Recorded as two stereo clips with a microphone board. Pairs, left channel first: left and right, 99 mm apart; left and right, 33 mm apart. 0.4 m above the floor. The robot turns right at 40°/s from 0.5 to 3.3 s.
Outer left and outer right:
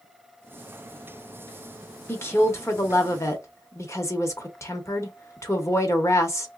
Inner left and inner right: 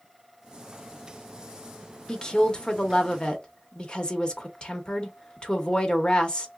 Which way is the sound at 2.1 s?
55° left.